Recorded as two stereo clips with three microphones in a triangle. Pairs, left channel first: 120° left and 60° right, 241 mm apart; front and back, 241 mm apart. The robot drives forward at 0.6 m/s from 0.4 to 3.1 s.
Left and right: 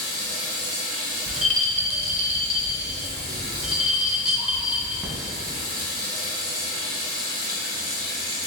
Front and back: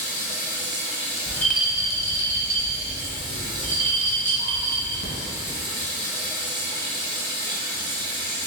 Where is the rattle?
75° right, 0.6 m; by 5.1 s 145° right, 1.1 m.